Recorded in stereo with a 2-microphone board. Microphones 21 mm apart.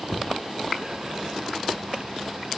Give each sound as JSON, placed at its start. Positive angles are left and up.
{"t": 0.1, "sound": "knocking", "side_deg": 30, "distance_m": 0.8}